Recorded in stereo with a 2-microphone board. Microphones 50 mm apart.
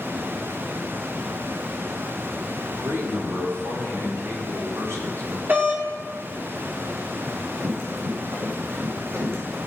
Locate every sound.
2.7 s a man speaking: 75° right (ahead or behind), 3.5 m; by 5.4 s 70° right (ahead or behind), 6 m
5.5 s a doorbell: 45° right (ahead or behind), 3 m
7.2 s running footsteps: 60° right (ahead or behind), 6.5 m; by 9.6 s 70° right (ahead or behind), 6 m